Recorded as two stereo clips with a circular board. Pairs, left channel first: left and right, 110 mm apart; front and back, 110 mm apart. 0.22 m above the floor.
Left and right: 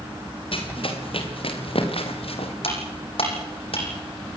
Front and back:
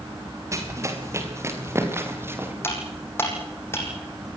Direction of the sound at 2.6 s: 65° left.